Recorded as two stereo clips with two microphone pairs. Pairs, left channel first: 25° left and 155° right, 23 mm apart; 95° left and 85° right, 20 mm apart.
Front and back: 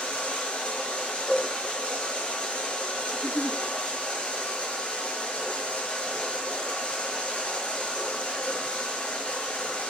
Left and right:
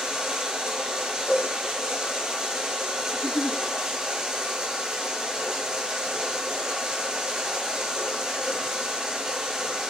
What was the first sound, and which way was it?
Running water, 20° right.